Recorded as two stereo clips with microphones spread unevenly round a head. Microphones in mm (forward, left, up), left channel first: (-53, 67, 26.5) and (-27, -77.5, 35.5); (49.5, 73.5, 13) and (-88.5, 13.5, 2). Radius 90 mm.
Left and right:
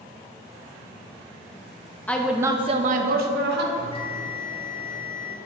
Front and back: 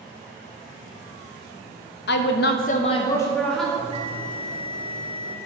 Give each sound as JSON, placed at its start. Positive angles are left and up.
{"t": 2.1, "sound": "a woman speaking", "azimuth_deg": 20, "distance_m": 0.9}
{"t": 3.8, "sound": "a bell", "azimuth_deg": 155, "distance_m": 1.5}